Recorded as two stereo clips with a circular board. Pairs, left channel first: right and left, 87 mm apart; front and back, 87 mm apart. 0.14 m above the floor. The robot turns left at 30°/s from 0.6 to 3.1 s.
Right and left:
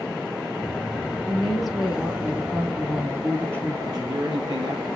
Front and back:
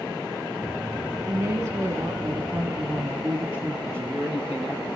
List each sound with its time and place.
1.3 s a woman speaking: 175° right, 1.3 m; by 3.8 s 130° left, 1.3 m
3.9 s a man speaking: 120° left, 2.5 m